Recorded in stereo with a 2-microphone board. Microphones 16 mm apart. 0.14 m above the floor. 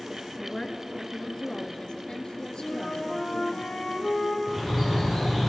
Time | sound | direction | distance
0.4 | a woman speaking | 35° left (ahead or behind) | 1.7 m
2.6 | a flute | 75° left (ahead or behind) | 4 m
4.5 | a bird | 5° left (ahead or behind) | 9.5 m